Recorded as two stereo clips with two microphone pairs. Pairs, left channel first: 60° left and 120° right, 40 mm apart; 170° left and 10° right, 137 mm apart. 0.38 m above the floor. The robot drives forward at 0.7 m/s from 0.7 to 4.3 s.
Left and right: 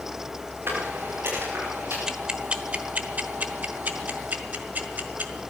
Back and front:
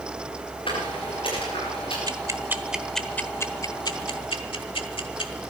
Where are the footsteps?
140° right, 7 m.